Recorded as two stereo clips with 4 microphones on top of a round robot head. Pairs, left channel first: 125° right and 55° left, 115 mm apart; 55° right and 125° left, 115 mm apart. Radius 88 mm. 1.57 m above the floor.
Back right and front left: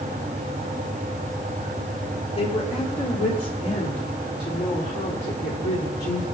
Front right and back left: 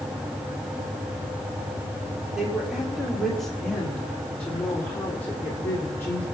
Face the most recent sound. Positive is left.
turn(degrees=-125)